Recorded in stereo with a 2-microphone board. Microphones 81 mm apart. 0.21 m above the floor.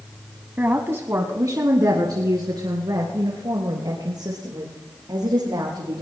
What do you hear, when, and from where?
0.6 s a woman speaking: 20° right (ahead or behind), 1.1 m; by 6.0 s 60° right (ahead or behind), 5 m